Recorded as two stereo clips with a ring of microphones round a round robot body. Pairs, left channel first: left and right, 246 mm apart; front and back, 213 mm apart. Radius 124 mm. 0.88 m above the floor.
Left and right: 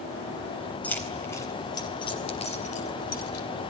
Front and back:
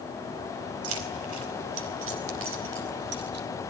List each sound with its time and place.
0.8 s keys jangling: 175° left, 4 m; by 3.5 s 140° left, 3 m